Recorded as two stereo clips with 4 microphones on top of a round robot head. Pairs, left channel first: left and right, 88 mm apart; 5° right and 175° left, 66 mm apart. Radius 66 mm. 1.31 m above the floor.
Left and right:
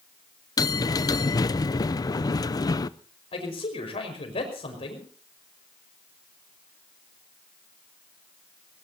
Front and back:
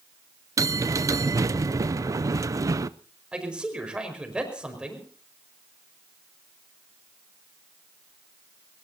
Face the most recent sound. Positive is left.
turn(degrees=100)